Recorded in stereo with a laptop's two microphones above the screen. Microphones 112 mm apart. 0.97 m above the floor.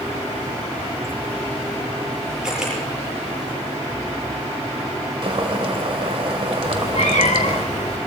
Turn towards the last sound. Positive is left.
turn(degrees=70)  # may be behind; listen again after turning